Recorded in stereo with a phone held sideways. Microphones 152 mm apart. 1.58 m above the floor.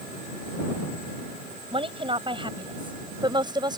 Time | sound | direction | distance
1.7 | a woman speaking | 35° right (ahead or behind) | ?